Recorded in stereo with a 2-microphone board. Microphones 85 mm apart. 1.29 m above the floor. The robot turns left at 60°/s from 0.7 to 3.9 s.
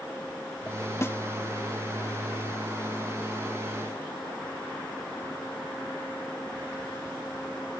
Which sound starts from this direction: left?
A snare drum, at 1.0 s.